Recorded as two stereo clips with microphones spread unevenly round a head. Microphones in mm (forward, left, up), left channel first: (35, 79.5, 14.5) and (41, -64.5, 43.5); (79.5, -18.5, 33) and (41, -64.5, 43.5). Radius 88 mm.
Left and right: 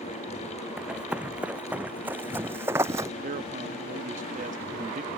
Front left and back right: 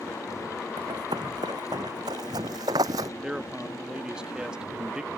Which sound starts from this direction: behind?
Running footsteps, at 0.8 s.